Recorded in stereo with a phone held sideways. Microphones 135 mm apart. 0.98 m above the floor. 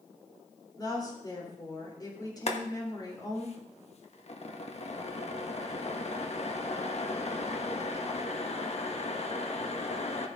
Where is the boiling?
50° left (ahead or behind), 1.2 m.